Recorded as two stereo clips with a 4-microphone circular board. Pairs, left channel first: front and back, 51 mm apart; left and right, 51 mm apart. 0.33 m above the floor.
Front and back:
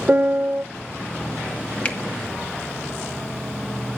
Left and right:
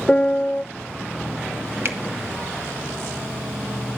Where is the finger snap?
55° right, 1.9 m.